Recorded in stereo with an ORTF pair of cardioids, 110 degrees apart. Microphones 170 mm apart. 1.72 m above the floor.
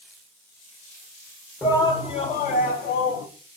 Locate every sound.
1.6 s a shout: 15° left, 0.8 m; by 3.3 s 70° left, 1.3 m